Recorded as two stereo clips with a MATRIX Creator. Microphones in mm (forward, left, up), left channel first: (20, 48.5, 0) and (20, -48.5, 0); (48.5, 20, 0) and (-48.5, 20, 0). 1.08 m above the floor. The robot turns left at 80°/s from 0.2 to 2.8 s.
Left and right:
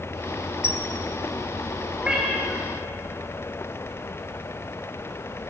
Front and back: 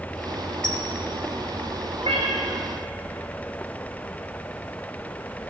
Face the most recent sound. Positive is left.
turn(degrees=130)